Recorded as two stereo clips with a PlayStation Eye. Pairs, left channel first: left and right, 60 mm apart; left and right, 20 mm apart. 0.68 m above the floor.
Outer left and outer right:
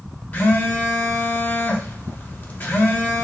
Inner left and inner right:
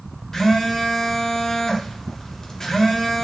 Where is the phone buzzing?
30° left (ahead or behind), 0.6 m.